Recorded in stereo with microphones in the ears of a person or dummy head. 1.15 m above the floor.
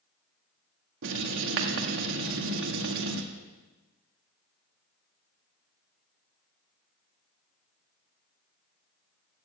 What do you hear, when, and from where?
1.0 s writing: 75° right (ahead or behind), 1.6 m